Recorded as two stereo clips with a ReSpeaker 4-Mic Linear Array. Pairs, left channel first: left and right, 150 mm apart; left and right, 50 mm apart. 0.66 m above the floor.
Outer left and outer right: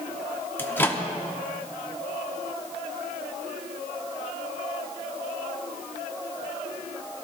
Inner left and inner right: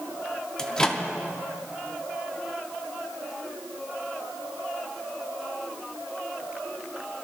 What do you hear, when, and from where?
0.6 s a microwave: 15° left (ahead or behind), 1.0 m